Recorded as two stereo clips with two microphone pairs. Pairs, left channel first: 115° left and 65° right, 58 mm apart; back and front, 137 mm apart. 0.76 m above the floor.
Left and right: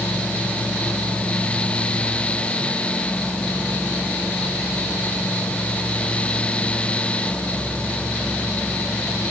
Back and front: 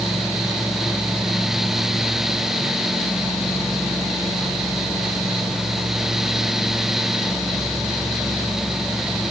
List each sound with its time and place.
Only background noise.